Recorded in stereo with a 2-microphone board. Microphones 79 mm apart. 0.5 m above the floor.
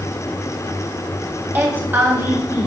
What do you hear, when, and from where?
1.6 s a woman speaking: 25° right (ahead or behind), 3 m